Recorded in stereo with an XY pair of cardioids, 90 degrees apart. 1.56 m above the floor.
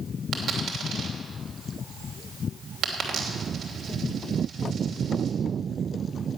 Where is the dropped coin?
70° right, 3 m.